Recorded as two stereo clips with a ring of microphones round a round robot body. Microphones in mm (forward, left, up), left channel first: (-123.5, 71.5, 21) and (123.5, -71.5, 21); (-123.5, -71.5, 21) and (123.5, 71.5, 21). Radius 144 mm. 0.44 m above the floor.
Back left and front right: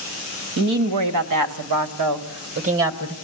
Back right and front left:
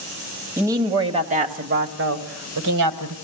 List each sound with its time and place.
0.6 s a woman speaking: 50° right, 2.5 m; by 3.1 s 20° left, 1.8 m